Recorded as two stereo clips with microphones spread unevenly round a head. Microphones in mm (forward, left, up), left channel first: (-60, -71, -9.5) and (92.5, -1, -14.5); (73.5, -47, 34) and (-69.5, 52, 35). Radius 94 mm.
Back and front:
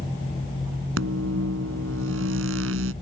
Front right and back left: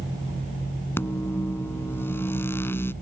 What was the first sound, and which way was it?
A microwave, 45° left.